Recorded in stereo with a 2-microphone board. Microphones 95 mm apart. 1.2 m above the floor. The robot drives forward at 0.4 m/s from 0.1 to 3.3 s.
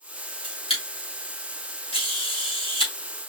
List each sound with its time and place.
0.4 s a camera shutter: 75° left (ahead or behind), 3 m